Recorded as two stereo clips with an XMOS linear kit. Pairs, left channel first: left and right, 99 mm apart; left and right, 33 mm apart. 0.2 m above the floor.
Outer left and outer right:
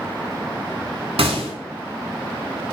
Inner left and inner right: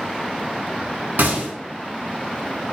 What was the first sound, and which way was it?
A gunshot, 65° right (ahead or behind).